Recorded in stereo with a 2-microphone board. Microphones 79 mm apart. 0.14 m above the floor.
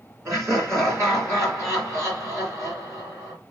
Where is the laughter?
35° right (ahead or behind), 2 m.